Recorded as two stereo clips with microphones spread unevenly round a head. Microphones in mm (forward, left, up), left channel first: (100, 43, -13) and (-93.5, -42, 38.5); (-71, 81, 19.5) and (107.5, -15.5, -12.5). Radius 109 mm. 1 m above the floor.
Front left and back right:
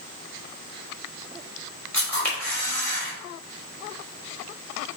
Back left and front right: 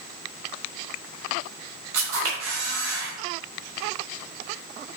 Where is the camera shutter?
60° right, 3 m.